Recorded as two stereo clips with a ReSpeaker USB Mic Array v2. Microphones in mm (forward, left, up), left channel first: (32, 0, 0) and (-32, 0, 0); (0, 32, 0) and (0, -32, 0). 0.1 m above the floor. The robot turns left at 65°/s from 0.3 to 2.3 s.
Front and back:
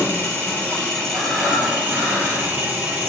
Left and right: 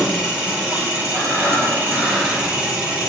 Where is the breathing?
50° left, 1.3 m; by 2.5 s 25° right, 1.3 m.